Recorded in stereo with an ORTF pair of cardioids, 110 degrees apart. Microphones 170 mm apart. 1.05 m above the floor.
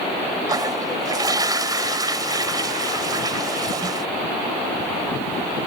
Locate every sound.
0.5 s a toilet flushing: 20° right